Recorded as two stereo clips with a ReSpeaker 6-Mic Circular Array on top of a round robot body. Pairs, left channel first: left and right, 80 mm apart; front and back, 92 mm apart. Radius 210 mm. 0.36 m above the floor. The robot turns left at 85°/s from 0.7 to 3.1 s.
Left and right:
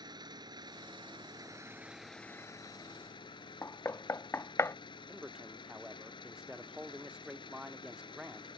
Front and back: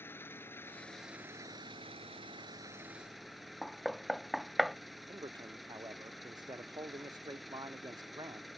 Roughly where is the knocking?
Left.